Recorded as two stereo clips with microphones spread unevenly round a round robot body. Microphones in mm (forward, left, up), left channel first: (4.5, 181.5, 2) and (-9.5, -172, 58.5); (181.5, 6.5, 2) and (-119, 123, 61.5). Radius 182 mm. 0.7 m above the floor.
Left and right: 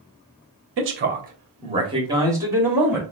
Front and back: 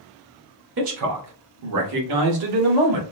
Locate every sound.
0.8 s a man speaking: 145° right, 0.9 m; by 3.0 s straight behind, 1.7 m